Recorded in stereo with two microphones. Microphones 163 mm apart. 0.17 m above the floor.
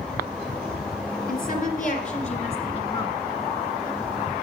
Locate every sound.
1.3 s a woman speaking: 55° left (ahead or behind), 2 m; by 3.2 s 25° left (ahead or behind), 1.8 m